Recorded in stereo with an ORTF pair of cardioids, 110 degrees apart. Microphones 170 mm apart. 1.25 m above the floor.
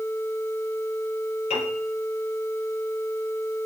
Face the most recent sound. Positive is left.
turn(degrees=45)